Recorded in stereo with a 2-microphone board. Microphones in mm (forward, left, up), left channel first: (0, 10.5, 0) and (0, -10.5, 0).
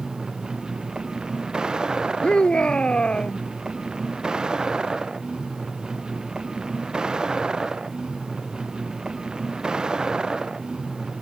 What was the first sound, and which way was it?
A vehicle, 45° right (ahead or behind).